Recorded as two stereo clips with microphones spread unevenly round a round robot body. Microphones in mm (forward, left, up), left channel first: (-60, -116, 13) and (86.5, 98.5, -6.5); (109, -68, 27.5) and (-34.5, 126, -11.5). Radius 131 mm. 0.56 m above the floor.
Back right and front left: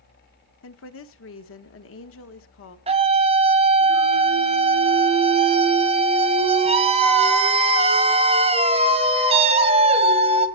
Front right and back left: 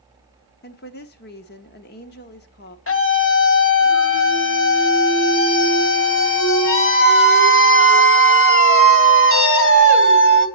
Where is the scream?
15° right, 2.5 m.